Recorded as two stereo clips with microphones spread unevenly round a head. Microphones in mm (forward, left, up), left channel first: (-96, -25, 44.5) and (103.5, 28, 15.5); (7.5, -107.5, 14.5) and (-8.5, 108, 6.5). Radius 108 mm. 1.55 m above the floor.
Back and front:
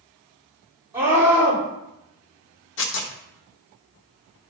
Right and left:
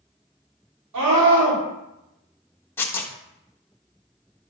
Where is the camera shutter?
No camera shutter in this recording.